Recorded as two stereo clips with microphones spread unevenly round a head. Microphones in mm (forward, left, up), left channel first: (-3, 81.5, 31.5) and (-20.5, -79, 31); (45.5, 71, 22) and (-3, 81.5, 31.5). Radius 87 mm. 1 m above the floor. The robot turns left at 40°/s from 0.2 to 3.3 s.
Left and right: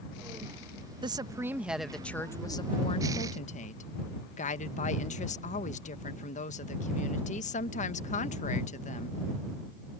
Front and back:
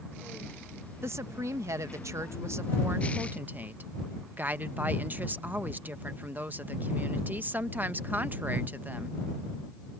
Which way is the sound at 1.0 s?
155° right.